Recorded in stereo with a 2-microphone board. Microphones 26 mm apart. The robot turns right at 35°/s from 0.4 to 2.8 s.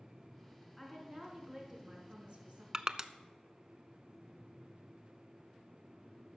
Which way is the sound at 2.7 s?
25° right (ahead or behind).